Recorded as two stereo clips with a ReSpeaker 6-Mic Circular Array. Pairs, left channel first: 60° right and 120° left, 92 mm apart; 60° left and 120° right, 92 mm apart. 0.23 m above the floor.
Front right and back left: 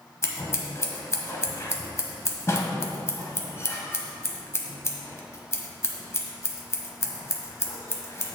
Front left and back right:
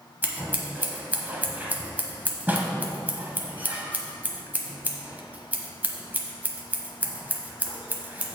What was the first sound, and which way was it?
Scissors, 70° right.